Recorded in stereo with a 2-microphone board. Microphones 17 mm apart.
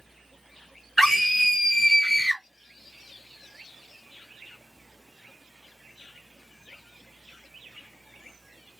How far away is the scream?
About 1.4 m.